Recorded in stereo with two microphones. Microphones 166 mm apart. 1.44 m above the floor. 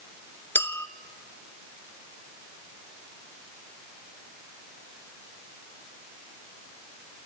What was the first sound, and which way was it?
A clink, 15° left (ahead or behind).